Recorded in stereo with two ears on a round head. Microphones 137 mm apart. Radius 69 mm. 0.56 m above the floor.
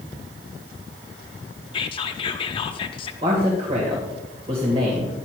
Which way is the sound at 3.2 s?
35° right (ahead or behind).